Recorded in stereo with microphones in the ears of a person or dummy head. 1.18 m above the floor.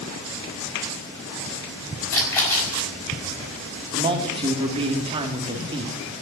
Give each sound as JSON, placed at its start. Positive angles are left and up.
{"t": 2.1, "sound": "a splash", "side_deg": 10, "distance_m": 6.0}
{"t": 3.9, "sound": "a man speaking", "side_deg": -25, "distance_m": 2.0}